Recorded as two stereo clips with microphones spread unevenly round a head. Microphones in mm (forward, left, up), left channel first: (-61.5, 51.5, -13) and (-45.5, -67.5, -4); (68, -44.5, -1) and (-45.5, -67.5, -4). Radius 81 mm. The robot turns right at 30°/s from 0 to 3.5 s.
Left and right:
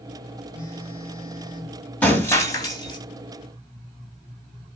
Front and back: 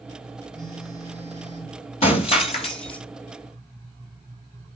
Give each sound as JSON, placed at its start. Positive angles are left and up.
{"t": 0.5, "sound": "a phone buzzing", "azimuth_deg": 25, "distance_m": 3.5}
{"t": 2.0, "sound": "breaking glass", "azimuth_deg": 15, "distance_m": 2.0}